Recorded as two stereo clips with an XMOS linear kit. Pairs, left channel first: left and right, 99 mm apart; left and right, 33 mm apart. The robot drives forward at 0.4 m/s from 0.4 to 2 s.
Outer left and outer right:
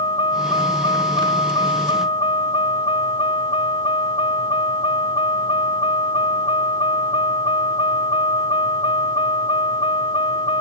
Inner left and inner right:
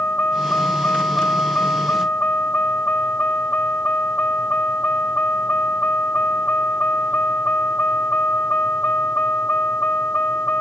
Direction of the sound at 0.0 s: 55° left (ahead or behind).